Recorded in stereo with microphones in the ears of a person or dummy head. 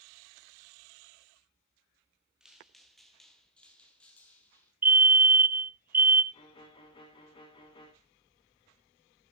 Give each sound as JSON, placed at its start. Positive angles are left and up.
{"t": 2.4, "sound": "footsteps", "side_deg": -5, "distance_m": 1.5}
{"t": 4.8, "sound": "a fire alarm", "side_deg": -10, "distance_m": 0.6}
{"t": 6.3, "sound": "a violin", "side_deg": 25, "distance_m": 2.5}